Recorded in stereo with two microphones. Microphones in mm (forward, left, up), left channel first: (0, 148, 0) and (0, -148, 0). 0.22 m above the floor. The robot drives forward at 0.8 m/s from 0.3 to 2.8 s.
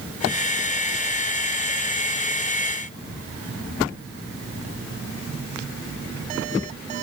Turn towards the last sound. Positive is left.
No sound to turn to.